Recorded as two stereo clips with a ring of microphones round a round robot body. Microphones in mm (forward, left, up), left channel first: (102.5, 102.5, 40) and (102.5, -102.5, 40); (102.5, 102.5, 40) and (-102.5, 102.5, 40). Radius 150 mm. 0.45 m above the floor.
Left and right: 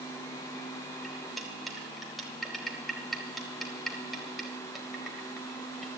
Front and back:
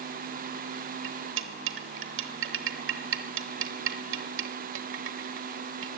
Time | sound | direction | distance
1.0 | cutlery clinking | straight behind | 0.9 m